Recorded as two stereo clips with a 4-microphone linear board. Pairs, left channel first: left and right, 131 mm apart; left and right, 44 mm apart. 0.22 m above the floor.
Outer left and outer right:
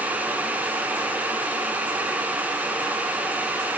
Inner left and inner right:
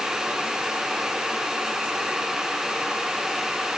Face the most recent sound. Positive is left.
No sound to turn to.